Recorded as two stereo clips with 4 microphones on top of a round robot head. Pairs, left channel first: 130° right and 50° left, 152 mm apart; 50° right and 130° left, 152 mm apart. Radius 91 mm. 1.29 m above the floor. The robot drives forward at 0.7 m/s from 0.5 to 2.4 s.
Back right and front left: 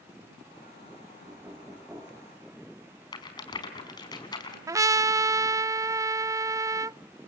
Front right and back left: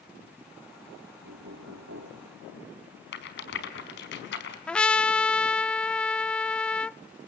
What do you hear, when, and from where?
1.2 s knocking: 120° left, 2 m; by 2.3 s 135° left, 2.5 m
3.1 s a rattle: 65° right, 4.5 m
4.7 s a trumpet: 25° left, 0.5 m